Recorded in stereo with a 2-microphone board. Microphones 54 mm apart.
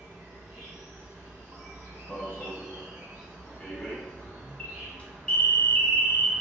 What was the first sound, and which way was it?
An insect, 50° right (ahead or behind).